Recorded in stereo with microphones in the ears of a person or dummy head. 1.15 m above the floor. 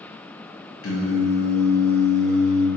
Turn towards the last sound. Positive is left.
turn(degrees=70)  # may be behind; listen again after turning